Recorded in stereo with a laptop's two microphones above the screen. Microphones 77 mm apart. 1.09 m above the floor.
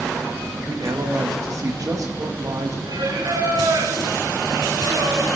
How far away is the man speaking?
About 1.1 m.